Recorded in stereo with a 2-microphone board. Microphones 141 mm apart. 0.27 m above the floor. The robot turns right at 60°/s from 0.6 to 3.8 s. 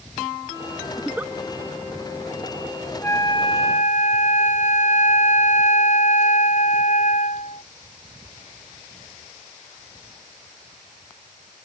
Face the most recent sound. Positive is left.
turn(degrees=65)